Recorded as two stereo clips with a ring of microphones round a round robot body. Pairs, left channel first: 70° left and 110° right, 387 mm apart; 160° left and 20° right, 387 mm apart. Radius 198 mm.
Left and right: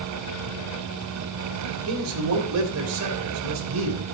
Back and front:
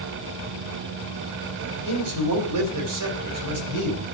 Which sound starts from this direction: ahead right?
A man speaking, at 1.9 s.